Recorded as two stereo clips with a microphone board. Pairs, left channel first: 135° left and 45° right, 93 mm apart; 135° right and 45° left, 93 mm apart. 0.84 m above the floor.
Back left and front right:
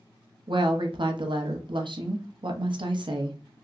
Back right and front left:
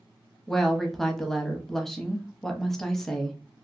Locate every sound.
0.5 s a woman speaking: 50° right, 0.6 m